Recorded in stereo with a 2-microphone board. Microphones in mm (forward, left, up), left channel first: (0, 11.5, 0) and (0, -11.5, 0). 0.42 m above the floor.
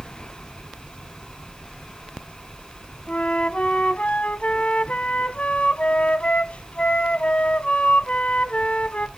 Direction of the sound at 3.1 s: 70° left (ahead or behind).